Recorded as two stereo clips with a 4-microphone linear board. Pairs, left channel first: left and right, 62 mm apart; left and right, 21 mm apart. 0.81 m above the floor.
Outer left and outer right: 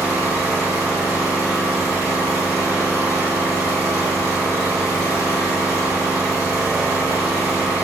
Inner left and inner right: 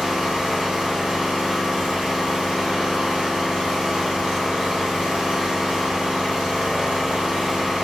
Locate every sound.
0.0 s an engine running: 85° right, 2.0 m